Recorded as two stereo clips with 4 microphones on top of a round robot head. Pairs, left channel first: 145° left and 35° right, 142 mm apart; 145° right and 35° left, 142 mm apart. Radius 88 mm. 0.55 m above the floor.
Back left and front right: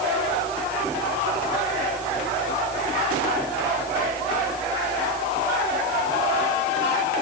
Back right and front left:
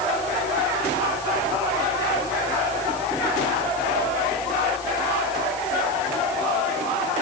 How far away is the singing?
No singing in this recording.